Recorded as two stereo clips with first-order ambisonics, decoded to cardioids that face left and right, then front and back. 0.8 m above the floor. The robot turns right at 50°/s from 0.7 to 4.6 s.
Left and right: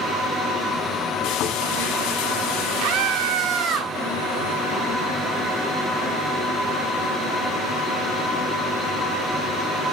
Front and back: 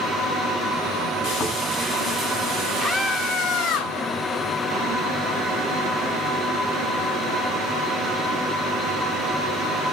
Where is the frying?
50° left, 7.5 m; by 3.8 s straight behind, 7.5 m.